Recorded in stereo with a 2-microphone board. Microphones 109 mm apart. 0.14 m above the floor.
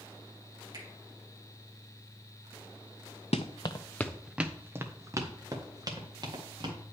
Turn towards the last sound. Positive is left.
turn(degrees=-40)  # may be behind; listen again after turning